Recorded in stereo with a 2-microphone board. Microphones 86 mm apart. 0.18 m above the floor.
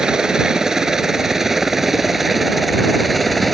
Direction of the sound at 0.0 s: 5° right (ahead or behind).